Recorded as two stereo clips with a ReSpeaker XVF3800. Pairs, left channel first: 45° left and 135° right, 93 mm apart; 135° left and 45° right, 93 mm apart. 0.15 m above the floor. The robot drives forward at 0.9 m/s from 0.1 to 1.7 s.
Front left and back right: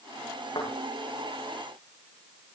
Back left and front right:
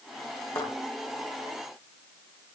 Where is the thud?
90° left, 9 m.